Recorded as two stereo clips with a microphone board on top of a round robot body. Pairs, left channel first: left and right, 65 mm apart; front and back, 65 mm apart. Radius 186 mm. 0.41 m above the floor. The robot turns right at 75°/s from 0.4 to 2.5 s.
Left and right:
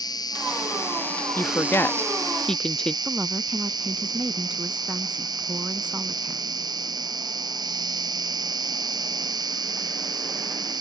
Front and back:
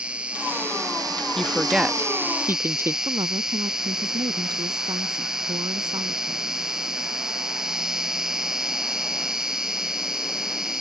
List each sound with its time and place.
0.0 s an insect: 105° left; by 10.8 s 100° right
1.4 s a woman speaking: 75° left; by 3.0 s 160° left
3.0 s a woman speaking: 165° right